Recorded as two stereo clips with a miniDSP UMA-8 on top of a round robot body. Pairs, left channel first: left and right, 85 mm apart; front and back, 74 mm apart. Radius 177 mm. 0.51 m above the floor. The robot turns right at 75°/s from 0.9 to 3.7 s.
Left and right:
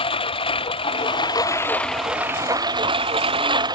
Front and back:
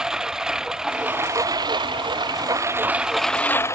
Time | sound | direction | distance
0.0 | a lawn mower | 100° left | ?